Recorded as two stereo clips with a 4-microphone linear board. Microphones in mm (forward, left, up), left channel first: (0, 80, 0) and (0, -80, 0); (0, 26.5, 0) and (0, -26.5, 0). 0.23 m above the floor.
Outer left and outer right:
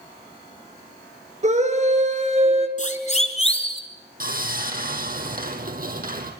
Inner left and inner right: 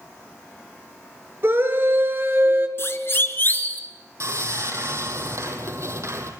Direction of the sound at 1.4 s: 45° right (ahead or behind).